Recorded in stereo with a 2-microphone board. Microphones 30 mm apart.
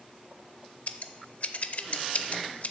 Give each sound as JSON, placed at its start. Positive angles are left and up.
{"t": 0.9, "sound": "scissors", "side_deg": 55, "distance_m": 0.5}